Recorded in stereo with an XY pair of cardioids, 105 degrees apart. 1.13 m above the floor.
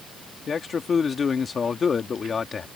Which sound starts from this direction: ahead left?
A man speaking, at 0.5 s.